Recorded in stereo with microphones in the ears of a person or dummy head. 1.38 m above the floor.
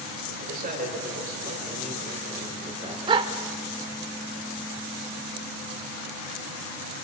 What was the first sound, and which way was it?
A man speaking, 55° right (ahead or behind).